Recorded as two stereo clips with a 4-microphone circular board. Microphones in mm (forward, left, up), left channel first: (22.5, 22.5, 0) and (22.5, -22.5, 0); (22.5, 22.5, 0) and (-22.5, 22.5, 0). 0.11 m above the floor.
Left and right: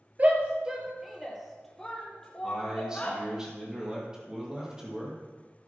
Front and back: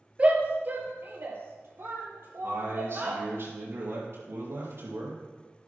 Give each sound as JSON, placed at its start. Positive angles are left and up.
{"t": 0.2, "sound": "a shout", "azimuth_deg": -130, "distance_m": 2.0}
{"t": 2.4, "sound": "a man speaking", "azimuth_deg": -165, "distance_m": 4.0}